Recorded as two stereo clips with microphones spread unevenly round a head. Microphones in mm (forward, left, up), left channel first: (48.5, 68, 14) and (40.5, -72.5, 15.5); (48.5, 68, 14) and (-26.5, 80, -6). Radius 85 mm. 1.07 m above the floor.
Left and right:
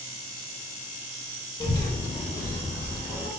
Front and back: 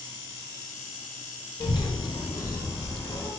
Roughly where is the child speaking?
Ahead left.